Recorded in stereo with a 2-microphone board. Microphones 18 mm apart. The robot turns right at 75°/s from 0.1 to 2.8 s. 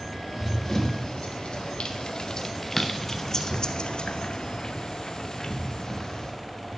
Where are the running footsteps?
10° left (ahead or behind), 3 m; by 6.3 s 40° left (ahead or behind), 2.5 m.